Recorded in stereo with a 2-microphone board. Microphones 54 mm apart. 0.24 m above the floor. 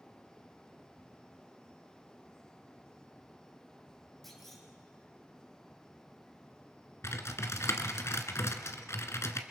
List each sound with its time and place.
4.2 s a clunk: 5° left (ahead or behind), 4 m
7.0 s typing on a keyboard: 60° left (ahead or behind), 1.4 m